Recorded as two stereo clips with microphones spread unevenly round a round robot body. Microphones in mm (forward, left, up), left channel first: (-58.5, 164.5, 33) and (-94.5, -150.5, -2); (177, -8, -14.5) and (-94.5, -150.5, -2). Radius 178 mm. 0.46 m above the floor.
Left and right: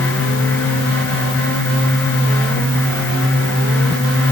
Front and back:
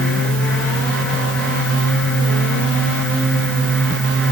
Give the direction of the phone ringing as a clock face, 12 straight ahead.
I don't hear a phone ringing.